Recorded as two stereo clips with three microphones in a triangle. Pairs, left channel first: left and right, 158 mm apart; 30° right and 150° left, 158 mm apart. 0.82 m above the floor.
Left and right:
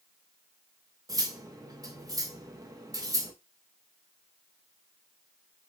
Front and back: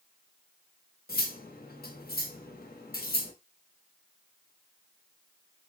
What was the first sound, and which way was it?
Cutlery clinking, 20° right.